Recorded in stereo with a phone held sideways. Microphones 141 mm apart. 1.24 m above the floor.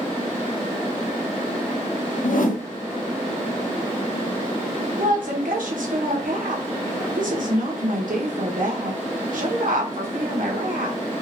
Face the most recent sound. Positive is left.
turn(degrees=-70)  # may be behind; listen again after turning